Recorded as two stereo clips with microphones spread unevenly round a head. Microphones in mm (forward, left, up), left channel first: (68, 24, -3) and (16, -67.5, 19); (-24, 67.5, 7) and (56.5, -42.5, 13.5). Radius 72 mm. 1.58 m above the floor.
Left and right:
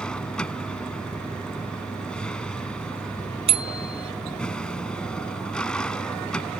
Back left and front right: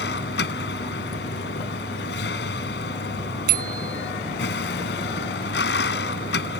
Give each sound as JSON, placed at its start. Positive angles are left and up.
{"t": 0.0, "sound": "a vehicle", "azimuth_deg": 145}
{"t": 3.5, "sound": "a bicycle bell", "azimuth_deg": -90}